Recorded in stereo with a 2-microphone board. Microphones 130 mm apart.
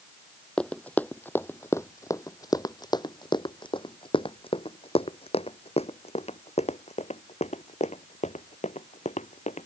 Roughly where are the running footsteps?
Centre.